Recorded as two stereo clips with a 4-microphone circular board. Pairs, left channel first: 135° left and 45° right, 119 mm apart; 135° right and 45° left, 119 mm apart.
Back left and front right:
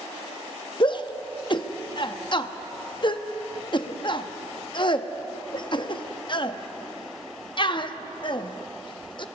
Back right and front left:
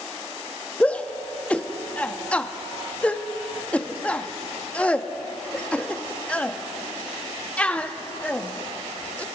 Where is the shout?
150° left, 0.7 m.